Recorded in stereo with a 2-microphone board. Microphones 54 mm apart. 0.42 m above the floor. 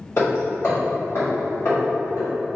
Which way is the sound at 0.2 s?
55° left (ahead or behind).